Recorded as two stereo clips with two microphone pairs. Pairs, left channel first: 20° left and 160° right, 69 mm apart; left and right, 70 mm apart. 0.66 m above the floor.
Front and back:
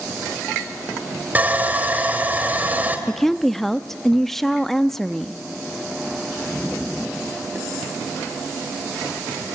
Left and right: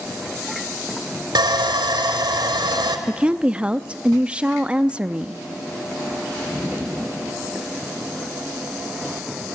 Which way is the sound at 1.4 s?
90° right.